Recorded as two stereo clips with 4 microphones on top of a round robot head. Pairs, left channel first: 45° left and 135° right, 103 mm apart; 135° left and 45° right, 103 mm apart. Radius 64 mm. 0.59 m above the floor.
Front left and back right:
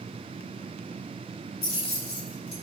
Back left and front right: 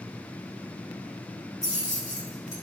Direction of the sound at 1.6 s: 70° left.